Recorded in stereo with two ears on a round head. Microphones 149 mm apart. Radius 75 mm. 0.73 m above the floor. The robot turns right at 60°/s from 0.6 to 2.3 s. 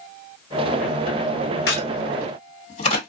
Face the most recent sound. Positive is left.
turn(degrees=40)  # may be behind; listen again after turning